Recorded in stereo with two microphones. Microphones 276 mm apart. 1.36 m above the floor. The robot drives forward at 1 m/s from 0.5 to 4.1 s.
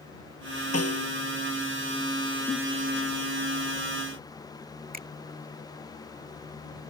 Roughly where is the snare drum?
Left.